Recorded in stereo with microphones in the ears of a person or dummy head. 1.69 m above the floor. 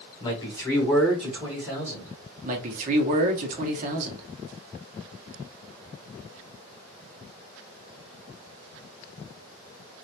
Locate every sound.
0.2 s a man speaking: 25° left (ahead or behind), 0.9 m; by 2.1 s 10° right (ahead or behind), 2.0 m
2.4 s a man speaking: 45° right (ahead or behind), 0.9 m